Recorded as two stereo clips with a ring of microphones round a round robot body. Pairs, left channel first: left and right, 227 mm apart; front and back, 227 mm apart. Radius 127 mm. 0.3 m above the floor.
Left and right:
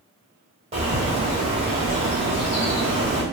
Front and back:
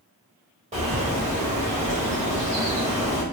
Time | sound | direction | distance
0.7 | a bird | 140° right | 1.5 m